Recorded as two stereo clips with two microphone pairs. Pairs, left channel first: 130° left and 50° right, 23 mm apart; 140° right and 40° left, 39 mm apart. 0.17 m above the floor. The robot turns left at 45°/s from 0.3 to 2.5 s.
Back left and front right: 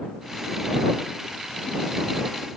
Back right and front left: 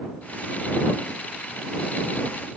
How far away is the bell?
I don't hear a bell.